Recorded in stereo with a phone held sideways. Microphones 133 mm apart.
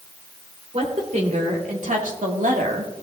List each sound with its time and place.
0.7 s a woman speaking: 60° right (ahead or behind), 3 m